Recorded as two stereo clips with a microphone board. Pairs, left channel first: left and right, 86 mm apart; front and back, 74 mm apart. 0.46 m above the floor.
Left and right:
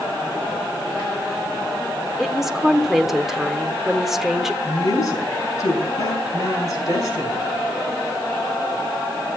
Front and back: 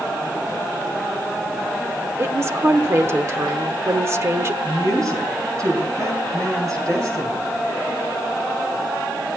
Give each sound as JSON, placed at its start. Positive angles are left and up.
{"t": 2.2, "sound": "a woman speaking", "azimuth_deg": -175, "distance_m": 1.0}
{"t": 4.6, "sound": "a woman speaking", "azimuth_deg": 140, "distance_m": 4.5}